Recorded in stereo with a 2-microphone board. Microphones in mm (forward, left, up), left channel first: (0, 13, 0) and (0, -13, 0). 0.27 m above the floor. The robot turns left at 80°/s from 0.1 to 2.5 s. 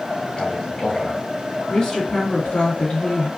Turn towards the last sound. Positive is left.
turn(degrees=125)